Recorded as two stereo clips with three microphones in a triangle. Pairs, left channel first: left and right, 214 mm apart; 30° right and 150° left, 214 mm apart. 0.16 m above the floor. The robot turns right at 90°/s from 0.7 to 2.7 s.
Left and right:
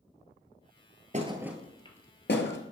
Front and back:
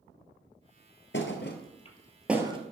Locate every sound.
1.1 s a thud: 40° right, 1.2 m; by 2.6 s 90° left, 1.2 m